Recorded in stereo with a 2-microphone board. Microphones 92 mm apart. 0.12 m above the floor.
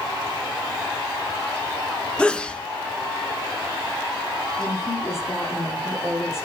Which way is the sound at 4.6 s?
25° left (ahead or behind).